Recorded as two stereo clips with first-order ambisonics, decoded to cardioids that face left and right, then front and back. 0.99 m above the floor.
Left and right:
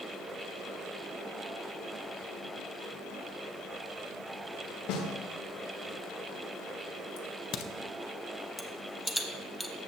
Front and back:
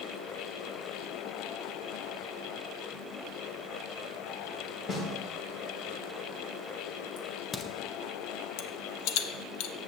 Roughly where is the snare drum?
Ahead left.